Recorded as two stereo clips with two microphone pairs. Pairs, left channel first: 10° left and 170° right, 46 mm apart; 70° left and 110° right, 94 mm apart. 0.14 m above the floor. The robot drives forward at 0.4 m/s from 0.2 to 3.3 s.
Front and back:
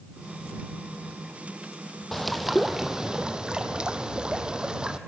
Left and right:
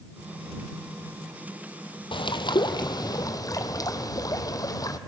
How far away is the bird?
About 1.0 m.